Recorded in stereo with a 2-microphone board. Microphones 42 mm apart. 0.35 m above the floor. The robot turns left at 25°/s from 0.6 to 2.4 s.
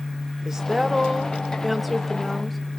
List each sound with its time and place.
0.5 s a woman speaking: 15° right (ahead or behind), 0.9 m; by 2.6 s 5° left (ahead or behind), 0.9 m